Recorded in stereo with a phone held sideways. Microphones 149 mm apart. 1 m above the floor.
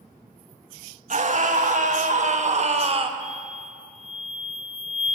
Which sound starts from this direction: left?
An explosion, at 3.2 s.